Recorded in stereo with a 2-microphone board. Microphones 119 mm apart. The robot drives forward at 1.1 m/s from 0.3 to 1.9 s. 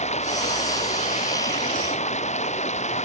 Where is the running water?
75° left (ahead or behind); by 3.1 s 80° left.